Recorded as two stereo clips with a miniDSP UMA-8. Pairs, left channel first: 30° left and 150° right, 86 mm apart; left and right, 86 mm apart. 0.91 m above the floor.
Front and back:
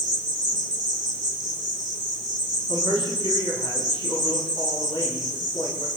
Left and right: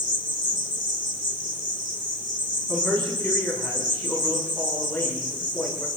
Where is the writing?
No writing in this recording.